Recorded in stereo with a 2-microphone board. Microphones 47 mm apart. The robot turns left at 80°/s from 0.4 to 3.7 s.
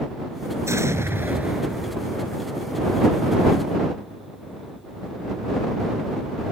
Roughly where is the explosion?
Right.